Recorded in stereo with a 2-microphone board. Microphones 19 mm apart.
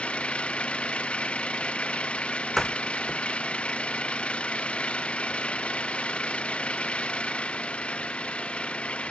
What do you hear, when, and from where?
0.0 s an engine running: 70° left (ahead or behind)
2.6 s a door slam: 5° left (ahead or behind)